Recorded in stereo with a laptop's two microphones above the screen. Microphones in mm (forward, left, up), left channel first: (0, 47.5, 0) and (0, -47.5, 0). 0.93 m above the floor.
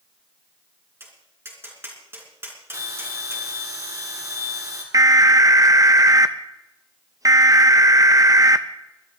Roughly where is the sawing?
No sawing in this recording.